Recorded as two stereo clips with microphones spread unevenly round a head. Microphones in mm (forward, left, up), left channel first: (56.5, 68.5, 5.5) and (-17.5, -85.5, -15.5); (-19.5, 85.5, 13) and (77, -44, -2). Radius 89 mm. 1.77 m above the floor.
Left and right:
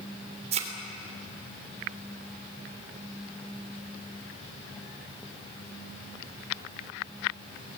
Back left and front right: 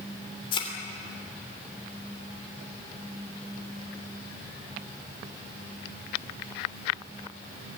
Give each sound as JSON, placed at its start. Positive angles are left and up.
{"t": 0.5, "sound": "a thud", "azimuth_deg": -175, "distance_m": 3.0}